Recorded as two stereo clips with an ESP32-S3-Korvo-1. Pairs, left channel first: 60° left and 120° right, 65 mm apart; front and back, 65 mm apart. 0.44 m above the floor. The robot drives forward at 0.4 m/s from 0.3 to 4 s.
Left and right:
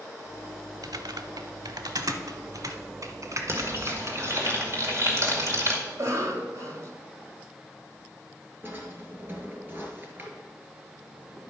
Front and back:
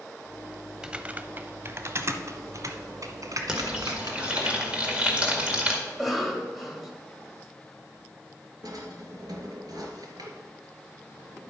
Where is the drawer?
Straight behind, 2.5 m.